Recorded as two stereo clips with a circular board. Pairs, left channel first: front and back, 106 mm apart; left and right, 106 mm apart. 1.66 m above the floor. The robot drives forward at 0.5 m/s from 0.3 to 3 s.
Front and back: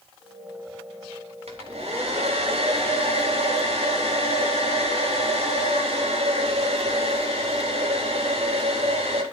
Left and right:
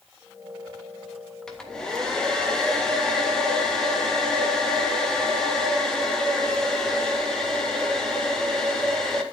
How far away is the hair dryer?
About 3 m.